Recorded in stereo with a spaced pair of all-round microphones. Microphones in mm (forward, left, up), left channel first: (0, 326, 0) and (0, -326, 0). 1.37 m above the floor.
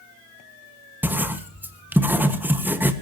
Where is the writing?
5° right (ahead or behind), 1.5 m.